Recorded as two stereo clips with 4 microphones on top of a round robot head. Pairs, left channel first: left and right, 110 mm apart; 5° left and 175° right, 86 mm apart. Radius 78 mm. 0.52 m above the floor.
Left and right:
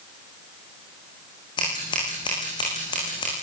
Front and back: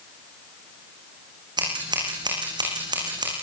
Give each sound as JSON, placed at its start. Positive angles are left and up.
{"t": 1.6, "sound": "scissors", "azimuth_deg": 150, "distance_m": 10.0}